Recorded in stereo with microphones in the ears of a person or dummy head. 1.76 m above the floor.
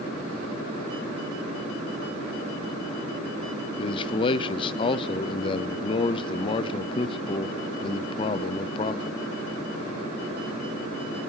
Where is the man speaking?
30° left (ahead or behind), 0.7 m.